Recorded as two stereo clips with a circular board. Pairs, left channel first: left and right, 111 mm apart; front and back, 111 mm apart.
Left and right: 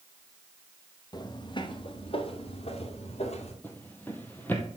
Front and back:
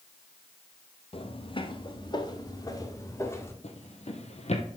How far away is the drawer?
About 1.8 m.